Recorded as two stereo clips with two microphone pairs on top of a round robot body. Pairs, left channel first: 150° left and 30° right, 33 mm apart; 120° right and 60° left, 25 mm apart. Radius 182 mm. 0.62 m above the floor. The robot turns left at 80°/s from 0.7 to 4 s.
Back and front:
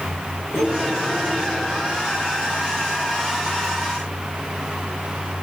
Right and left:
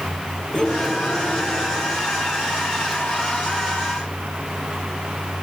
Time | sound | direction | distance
0.5 | cutlery clinking | 165° left | 7 m